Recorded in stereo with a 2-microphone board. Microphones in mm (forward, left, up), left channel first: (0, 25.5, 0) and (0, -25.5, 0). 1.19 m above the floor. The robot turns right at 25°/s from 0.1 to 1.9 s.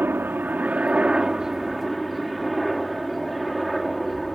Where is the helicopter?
45° right; by 4.4 s straight ahead.